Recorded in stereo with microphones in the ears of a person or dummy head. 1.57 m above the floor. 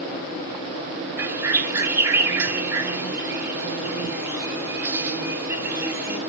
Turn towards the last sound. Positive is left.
turn(degrees=-15)  # may be behind; listen again after turning